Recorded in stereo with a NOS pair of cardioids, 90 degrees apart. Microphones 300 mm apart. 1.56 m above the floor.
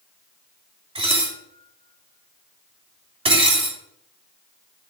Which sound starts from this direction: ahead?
Dishes clattering, at 0.9 s.